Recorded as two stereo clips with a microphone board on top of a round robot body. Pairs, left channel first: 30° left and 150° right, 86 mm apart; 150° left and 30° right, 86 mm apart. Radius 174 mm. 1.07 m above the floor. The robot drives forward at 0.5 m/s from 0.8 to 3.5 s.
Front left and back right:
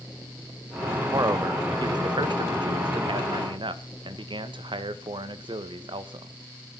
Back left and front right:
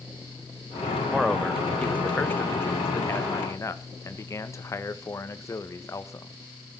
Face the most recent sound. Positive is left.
turn(degrees=-160)